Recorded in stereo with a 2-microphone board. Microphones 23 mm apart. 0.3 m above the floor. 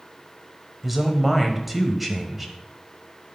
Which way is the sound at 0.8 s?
5° right (ahead or behind).